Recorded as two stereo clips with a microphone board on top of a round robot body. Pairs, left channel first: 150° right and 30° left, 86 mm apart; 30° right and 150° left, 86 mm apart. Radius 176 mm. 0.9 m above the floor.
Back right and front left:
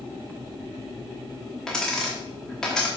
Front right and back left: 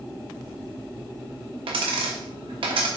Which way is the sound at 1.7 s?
125° left.